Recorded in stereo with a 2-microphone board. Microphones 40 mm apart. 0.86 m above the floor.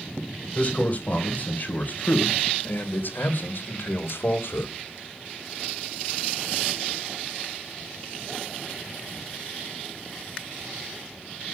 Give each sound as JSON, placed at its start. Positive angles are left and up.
{"t": 0.6, "sound": "a man speaking", "side_deg": 35, "distance_m": 4.0}